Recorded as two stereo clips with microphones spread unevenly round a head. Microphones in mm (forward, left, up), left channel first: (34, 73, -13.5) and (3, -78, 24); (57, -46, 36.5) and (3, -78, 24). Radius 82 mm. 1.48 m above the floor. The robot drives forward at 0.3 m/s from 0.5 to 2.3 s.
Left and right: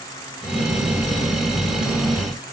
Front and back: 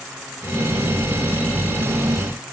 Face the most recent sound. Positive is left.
No sound to turn to.